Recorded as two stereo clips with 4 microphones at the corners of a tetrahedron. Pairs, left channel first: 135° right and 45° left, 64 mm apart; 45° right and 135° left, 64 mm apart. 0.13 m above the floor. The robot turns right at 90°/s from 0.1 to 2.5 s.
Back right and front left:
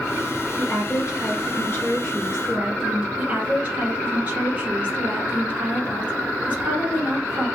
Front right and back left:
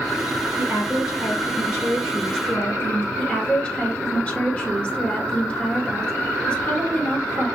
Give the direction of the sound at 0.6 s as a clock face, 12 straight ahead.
7 o'clock.